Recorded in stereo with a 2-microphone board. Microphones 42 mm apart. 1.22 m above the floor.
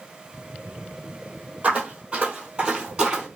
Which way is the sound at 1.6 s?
30° right (ahead or behind).